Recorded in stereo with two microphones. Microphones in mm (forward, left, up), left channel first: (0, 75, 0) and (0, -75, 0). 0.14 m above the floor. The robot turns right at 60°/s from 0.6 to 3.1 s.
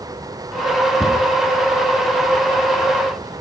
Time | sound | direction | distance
1.0 | a cupboard door | 5° left (ahead or behind) | 1.2 m